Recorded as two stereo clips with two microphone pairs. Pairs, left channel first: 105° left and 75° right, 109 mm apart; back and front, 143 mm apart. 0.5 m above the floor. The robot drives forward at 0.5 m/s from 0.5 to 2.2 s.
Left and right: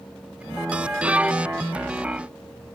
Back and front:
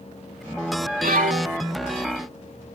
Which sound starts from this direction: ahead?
A violin, at 1.0 s.